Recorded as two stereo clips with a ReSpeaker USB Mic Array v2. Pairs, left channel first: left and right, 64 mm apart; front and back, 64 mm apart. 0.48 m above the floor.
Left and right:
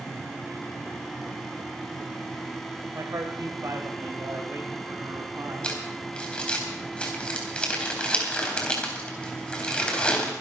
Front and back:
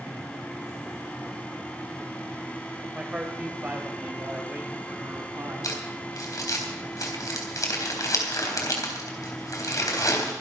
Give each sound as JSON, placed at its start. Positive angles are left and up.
{"t": 2.9, "sound": "a man speaking", "azimuth_deg": -105, "distance_m": 1.8}
{"t": 5.6, "sound": "crumpling", "azimuth_deg": 20, "distance_m": 3.5}